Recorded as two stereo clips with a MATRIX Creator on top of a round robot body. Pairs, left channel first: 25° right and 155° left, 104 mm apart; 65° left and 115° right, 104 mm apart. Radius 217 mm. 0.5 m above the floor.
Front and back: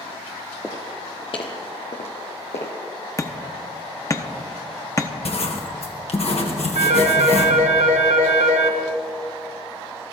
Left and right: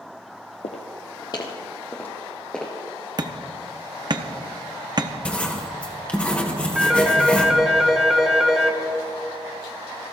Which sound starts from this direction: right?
Hammering, at 3.2 s.